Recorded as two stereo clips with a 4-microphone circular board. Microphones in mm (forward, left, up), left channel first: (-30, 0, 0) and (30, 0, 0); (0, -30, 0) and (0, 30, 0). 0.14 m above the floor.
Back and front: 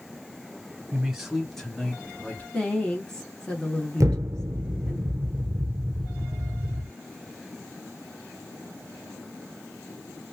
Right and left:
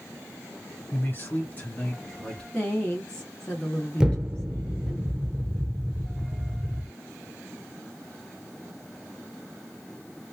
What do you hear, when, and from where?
0.9 s a man speaking: 70° right, 1.8 m; by 2.4 s 160° right, 1.7 m
2.5 s a woman speaking: 130° right, 1.1 m
4.0 s an explosion: 20° left, 0.5 m